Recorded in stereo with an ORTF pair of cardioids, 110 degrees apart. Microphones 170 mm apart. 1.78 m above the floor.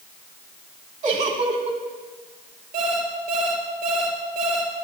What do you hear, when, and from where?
1.0 s a giggle: 45° right, 1.7 m
2.7 s an alarm clock: 65° right, 4 m